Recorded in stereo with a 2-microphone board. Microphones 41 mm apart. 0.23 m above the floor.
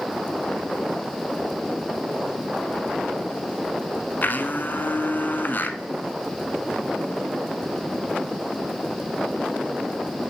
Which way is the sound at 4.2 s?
50° left (ahead or behind).